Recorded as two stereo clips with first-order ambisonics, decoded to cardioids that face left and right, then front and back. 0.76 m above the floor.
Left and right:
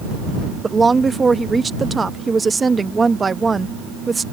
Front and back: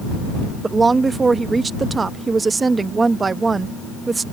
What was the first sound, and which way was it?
A woman speaking, 135° right.